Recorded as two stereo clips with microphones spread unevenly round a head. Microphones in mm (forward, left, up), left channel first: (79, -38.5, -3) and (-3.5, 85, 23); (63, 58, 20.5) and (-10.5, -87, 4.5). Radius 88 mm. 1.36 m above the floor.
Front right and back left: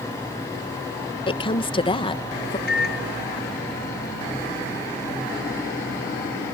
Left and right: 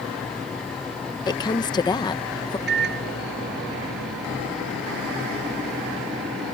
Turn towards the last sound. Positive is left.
turn(degrees=-95)